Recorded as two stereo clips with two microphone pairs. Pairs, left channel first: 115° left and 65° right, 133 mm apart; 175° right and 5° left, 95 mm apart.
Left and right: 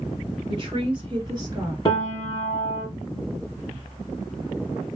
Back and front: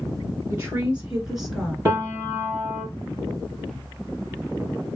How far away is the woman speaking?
About 1.8 m.